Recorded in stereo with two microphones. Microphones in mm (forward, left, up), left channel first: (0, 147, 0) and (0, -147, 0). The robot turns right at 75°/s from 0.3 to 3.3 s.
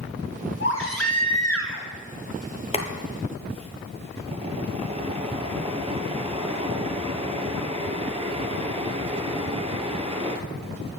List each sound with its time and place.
0.6 s a baby crying: 45° left, 1.9 m; by 1.9 s 140° left, 1.9 m
2.7 s boiling: 160° left, 1.3 m; by 10.4 s 160° right, 1.3 m